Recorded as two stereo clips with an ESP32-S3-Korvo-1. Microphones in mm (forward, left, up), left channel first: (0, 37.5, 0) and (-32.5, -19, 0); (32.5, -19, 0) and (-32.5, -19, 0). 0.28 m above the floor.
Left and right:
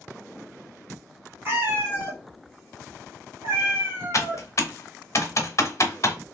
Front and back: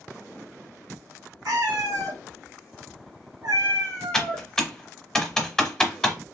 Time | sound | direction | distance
1.4 | a cat meowing | 175° right | 1.5 m
4.1 | typing on a keyboard | 80° left | 1.0 m